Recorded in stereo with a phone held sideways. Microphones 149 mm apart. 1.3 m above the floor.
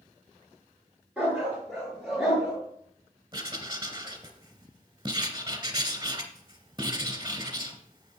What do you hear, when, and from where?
1.2 s a dog barking: 10° right (ahead or behind), 5 m
3.3 s writing: 35° right (ahead or behind), 1.9 m